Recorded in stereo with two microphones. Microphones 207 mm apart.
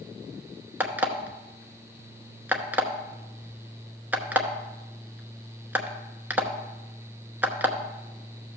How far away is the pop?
I don't hear a pop.